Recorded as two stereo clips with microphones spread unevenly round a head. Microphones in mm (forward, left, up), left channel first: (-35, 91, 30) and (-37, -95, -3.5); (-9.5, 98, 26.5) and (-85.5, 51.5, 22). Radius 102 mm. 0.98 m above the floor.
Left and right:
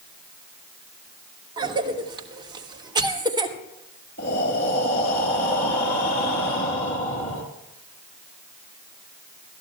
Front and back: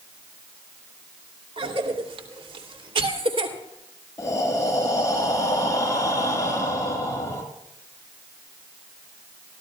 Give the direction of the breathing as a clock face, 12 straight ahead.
9 o'clock.